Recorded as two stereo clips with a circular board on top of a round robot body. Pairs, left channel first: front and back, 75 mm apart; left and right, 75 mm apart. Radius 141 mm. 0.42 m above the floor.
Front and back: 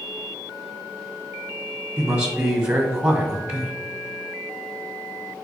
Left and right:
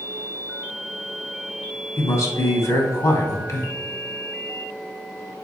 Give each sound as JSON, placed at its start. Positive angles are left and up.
{"t": 2.0, "sound": "a man speaking", "azimuth_deg": 110, "distance_m": 1.6}